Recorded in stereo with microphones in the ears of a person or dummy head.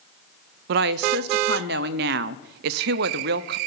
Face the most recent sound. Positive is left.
turn(degrees=-60)  # may be behind; listen again after turning